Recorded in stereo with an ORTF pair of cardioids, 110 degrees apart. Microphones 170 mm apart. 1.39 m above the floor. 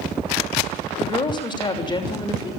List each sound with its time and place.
1.0 s a woman speaking: 25° left, 6.5 m